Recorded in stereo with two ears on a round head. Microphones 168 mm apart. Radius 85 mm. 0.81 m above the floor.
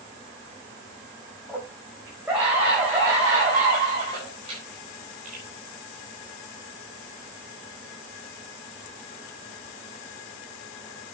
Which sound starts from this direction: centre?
A scream, at 1.5 s.